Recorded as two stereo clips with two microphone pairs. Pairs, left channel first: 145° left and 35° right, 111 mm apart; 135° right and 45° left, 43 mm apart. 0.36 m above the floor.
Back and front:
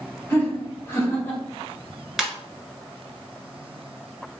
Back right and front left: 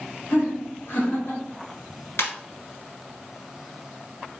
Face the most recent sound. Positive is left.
turn(degrees=-120)